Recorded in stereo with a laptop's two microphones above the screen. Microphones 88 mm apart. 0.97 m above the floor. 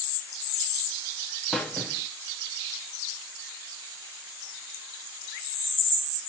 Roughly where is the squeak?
Centre.